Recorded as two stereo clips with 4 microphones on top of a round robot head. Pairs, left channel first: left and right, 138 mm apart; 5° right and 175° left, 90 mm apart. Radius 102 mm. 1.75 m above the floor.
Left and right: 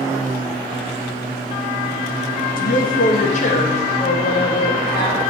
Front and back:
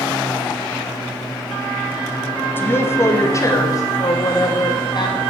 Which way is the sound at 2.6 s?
60° left.